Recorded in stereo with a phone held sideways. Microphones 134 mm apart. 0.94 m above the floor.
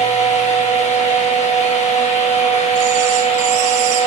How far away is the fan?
About 1.1 m.